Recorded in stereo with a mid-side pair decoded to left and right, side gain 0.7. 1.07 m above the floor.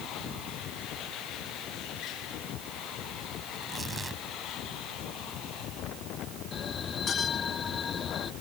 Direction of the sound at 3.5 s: 15° right.